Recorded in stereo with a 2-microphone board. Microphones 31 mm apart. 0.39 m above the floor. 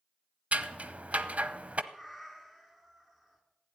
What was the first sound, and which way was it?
Scissors, 50° right (ahead or behind).